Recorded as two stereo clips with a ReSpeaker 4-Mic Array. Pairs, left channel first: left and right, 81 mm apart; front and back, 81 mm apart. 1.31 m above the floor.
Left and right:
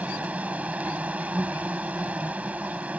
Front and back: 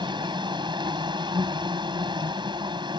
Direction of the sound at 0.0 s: 165° right.